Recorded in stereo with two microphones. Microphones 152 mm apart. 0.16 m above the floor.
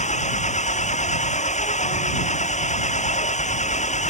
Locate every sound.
0.0 s an engine running: 50° left (ahead or behind)